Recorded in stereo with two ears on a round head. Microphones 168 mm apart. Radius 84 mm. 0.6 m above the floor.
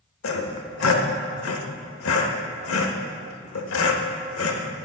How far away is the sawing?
About 0.9 m.